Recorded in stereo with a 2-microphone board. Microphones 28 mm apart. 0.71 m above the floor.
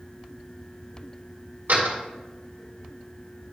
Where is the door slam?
75° right (ahead or behind), 1.6 m.